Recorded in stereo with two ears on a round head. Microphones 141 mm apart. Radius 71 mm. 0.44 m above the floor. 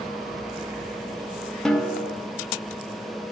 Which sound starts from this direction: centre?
A snare drum, at 1.6 s.